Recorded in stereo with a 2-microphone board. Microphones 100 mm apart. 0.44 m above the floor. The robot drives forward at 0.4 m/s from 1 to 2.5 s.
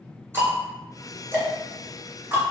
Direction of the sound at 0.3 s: 25° right (ahead or behind).